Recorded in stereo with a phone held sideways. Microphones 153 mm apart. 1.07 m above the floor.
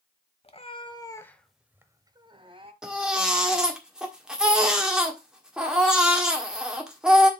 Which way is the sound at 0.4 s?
40° left (ahead or behind).